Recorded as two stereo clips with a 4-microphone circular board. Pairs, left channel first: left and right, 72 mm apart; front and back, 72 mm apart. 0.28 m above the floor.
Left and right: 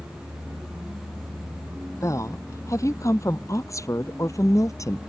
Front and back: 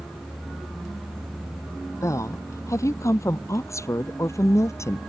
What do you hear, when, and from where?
2.0 s a woman speaking: 45° left; by 5.0 s 50° left